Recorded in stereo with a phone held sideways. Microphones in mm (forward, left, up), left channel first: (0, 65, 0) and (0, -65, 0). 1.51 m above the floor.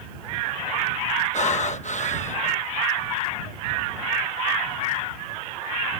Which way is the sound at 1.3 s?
60° left (ahead or behind).